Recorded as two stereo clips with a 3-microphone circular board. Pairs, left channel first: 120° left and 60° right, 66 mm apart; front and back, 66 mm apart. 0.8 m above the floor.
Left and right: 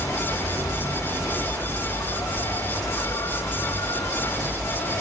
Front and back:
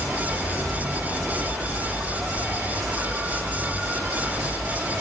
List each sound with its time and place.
0.0 s an insect: 90° left, 1.2 m